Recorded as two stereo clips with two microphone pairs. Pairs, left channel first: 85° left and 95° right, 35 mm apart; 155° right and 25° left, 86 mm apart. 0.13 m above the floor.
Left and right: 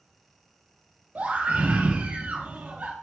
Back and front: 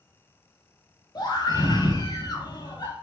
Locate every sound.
1.1 s a scream: 125° right, 4.5 m